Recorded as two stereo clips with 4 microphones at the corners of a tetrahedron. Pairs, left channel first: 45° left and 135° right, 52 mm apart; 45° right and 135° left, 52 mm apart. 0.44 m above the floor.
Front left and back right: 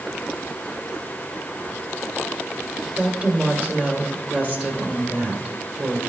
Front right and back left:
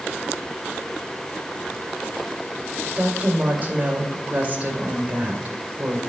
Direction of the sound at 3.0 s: Straight behind.